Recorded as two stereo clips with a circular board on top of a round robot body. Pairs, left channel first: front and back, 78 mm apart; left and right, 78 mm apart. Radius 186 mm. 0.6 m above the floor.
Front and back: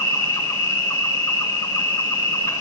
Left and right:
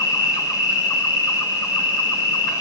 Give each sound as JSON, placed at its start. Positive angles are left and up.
{"t": 0.0, "sound": "an insect", "azimuth_deg": 50, "distance_m": 5.0}